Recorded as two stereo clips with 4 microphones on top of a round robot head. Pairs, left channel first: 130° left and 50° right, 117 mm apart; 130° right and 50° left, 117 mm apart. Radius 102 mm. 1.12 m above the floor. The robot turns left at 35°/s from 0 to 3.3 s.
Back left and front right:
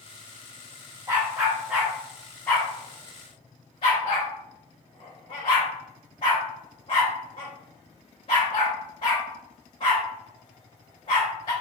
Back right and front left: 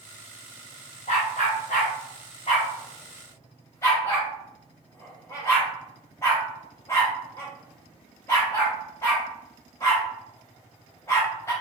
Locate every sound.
1.1 s a dog barking: 115° right, 0.6 m; by 11.5 s 165° left, 0.6 m